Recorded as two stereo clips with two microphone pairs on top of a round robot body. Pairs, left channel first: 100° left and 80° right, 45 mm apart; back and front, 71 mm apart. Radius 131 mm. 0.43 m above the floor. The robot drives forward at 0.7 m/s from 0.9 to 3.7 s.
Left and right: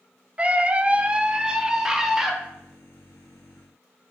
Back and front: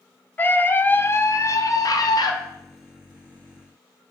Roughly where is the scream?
Behind right.